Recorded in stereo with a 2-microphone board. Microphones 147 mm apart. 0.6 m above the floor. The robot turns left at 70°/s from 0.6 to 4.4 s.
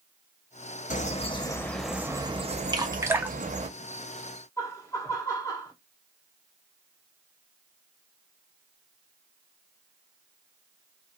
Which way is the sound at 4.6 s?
20° left (ahead or behind).